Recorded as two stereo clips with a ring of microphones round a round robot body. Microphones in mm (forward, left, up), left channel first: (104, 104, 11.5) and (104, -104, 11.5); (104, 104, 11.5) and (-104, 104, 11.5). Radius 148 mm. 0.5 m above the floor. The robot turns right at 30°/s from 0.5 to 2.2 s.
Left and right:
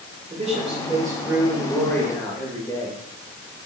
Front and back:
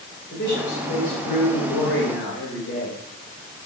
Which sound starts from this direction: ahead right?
A man speaking, at 0.3 s.